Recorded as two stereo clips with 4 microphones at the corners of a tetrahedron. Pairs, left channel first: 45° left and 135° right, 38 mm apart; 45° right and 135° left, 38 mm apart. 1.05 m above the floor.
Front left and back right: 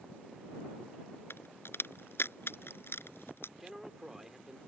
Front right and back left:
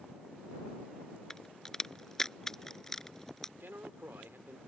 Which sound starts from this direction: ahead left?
A crack, at 1.3 s.